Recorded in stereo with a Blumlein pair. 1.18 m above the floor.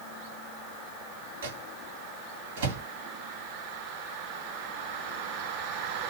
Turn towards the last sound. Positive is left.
turn(degrees=-60)